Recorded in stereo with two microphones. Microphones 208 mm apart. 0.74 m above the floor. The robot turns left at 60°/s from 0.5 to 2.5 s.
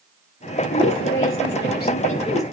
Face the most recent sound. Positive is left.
turn(degrees=10)